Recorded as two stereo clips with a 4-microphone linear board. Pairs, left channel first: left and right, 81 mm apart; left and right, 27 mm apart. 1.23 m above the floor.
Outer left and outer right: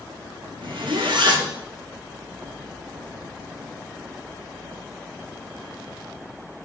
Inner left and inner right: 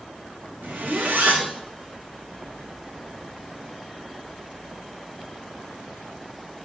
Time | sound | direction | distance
0.6 | a zipper | 90° right | 2.5 m